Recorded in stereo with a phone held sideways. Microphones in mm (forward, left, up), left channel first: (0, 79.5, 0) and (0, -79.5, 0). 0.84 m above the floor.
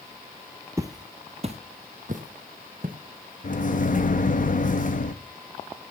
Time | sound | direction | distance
0.8 | footsteps | 20° right (ahead or behind) | 0.9 m
3.4 | a microwave | 55° left (ahead or behind) | 0.7 m